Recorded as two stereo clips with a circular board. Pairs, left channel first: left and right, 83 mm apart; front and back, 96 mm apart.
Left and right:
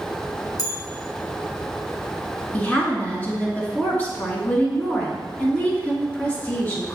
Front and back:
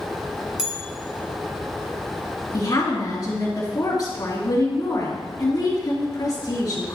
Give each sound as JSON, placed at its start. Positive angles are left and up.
{"t": 0.6, "sound": "a bell", "azimuth_deg": 100, "distance_m": 1.5}
{"t": 2.5, "sound": "a woman speaking", "azimuth_deg": 25, "distance_m": 2.5}